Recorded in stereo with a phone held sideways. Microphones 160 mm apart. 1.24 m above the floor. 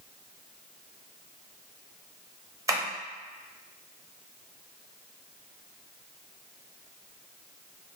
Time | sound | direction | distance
2.7 | tapping | 20° right (ahead or behind) | 0.7 m